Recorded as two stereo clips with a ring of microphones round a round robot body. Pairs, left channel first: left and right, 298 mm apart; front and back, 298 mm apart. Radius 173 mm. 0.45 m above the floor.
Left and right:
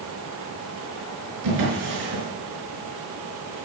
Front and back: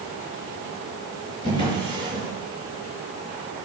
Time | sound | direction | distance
1.4 | a drawer | 75° right | 5 m